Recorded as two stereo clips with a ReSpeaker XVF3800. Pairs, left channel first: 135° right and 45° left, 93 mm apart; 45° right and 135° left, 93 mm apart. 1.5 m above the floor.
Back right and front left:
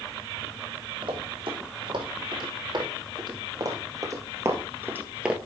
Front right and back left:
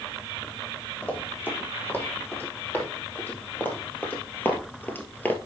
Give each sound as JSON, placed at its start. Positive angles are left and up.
{"t": 1.0, "sound": "running footsteps", "azimuth_deg": 25, "distance_m": 3.5}